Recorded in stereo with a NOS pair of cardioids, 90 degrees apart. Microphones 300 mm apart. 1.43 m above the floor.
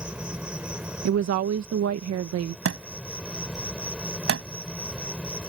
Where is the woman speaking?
60° right.